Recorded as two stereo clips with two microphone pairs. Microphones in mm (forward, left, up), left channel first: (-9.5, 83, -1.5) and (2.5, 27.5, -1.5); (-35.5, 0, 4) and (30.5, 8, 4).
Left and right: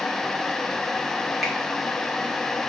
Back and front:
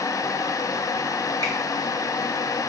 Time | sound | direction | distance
1.4 | a finger snap | 20° left | 2 m